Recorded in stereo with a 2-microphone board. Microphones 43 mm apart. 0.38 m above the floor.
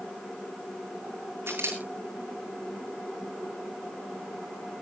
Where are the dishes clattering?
No dishes clattering in this recording.